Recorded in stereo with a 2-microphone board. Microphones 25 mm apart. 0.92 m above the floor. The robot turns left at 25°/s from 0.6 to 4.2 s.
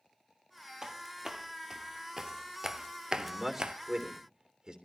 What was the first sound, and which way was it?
Footsteps, 25° right (ahead or behind).